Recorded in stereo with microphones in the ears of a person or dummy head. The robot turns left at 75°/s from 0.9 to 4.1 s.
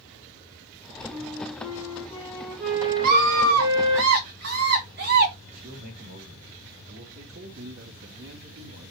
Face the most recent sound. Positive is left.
turn(degrees=-65)  # may be behind; listen again after turning